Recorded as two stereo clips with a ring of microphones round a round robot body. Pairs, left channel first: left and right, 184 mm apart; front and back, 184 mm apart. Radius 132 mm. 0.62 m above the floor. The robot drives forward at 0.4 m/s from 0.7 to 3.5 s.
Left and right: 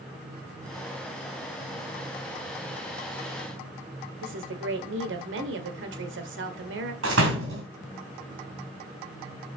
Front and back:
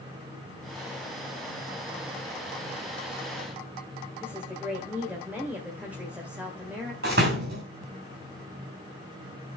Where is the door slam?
125° right, 2.5 m.